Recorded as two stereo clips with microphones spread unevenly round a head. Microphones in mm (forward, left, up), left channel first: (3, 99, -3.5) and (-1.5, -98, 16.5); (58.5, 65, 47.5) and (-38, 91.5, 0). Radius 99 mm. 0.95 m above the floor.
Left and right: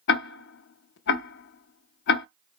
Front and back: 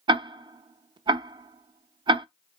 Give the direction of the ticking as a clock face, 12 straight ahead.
9 o'clock.